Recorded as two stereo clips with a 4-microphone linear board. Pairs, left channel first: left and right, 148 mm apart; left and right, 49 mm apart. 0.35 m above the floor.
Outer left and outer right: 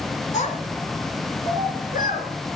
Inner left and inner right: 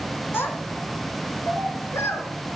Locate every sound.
0.3 s a child speaking: 55° left (ahead or behind), 2.5 m; by 2.3 s 70° left (ahead or behind), 3.5 m